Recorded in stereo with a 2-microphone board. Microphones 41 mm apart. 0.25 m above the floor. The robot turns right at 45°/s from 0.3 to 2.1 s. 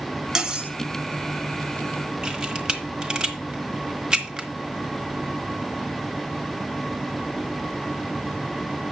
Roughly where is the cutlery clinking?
Centre.